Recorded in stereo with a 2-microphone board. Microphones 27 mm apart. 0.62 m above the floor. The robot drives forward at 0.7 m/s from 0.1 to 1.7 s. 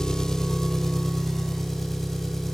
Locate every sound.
0.0 s an engine running: 25° left (ahead or behind), 0.7 m; by 2.5 s 10° left (ahead or behind), 1.8 m